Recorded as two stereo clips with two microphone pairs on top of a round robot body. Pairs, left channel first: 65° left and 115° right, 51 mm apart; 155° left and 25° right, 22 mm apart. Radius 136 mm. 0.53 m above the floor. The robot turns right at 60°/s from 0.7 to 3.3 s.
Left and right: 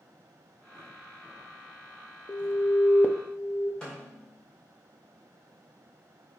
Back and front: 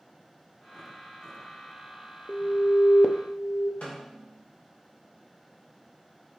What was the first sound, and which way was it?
An alarm, 75° left.